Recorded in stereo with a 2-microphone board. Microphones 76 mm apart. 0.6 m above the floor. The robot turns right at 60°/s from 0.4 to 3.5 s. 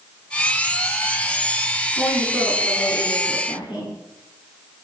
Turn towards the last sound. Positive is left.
turn(degrees=80)